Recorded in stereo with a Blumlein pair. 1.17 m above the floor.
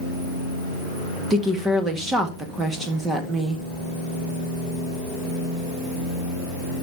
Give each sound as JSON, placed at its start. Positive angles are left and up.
{"t": 1.3, "sound": "a woman speaking", "azimuth_deg": -15, "distance_m": 1.6}